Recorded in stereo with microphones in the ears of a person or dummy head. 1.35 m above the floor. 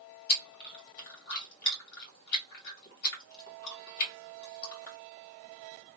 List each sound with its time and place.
0.3 s chewing: 50° left (ahead or behind), 1.7 m